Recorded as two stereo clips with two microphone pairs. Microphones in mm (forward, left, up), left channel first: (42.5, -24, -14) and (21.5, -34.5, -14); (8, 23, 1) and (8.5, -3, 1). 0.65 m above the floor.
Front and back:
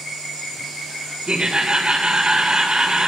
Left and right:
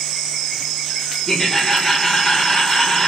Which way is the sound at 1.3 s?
165° left.